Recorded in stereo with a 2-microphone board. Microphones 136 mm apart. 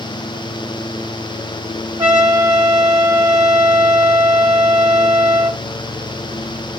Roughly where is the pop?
No pop in this recording.